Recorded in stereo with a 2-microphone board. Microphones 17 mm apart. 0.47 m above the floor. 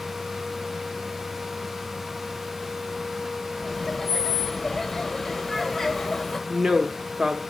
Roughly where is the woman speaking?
Right.